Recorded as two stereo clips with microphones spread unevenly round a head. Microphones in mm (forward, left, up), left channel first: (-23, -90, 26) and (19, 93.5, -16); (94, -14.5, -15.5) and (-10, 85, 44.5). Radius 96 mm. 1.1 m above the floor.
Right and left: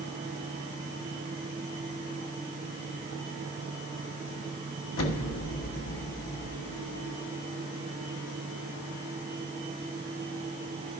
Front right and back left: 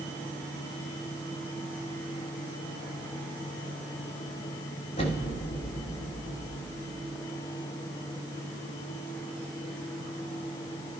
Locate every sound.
5.0 s an explosion: 100° right, 1.4 m